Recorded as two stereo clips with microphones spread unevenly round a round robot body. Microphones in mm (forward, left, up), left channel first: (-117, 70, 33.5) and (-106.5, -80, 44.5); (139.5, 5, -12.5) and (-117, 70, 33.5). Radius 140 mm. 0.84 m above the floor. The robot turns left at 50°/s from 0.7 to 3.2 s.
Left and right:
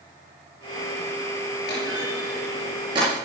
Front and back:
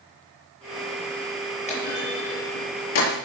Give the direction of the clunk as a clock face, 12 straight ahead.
10 o'clock.